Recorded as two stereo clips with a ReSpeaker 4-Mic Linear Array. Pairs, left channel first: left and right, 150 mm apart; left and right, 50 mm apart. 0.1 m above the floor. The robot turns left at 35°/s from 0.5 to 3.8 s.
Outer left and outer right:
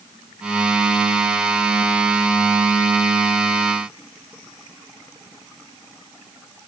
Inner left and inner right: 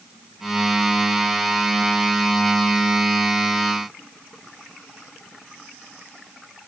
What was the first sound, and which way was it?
Only background noise.